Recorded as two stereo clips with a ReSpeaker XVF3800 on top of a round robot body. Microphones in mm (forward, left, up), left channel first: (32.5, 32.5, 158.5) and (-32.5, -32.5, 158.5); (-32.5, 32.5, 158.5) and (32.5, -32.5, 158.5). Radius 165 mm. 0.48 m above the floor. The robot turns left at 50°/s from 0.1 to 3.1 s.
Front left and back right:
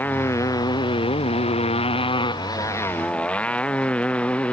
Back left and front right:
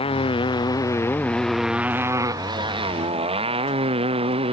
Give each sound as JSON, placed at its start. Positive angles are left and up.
{"t": 0.0, "sound": "a motorcycle", "azimuth_deg": 115}